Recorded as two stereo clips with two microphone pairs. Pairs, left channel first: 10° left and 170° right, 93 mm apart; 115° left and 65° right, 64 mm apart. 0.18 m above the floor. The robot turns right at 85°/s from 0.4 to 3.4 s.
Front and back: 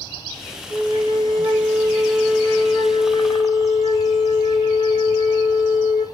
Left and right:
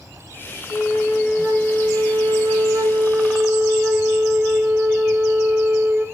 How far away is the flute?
About 4.5 m.